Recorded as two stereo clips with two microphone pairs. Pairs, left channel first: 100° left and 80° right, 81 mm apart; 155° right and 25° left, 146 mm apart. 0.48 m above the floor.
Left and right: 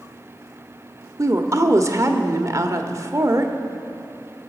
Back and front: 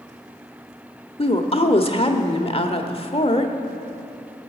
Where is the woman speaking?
120° right, 1.2 m.